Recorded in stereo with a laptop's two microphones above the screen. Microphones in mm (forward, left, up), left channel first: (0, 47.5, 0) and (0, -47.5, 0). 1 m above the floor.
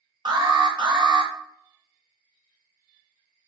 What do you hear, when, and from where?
0.2 s an alarm: 60° right (ahead or behind), 0.6 m